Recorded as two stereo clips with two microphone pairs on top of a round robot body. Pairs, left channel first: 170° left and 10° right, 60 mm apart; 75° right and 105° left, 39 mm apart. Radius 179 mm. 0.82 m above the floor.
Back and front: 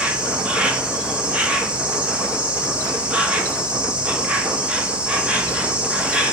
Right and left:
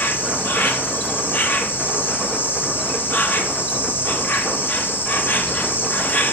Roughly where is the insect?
Right.